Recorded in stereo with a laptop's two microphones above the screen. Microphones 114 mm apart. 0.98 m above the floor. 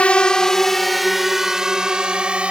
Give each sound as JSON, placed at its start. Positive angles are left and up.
{"t": 0.0, "sound": "a drone", "side_deg": 10}